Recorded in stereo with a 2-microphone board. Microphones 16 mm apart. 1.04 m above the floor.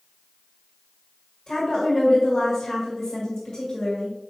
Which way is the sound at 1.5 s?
55° left (ahead or behind).